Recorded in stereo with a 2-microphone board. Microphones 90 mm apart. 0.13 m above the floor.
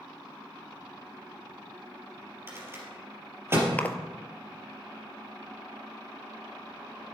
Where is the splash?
20° left (ahead or behind), 0.8 m.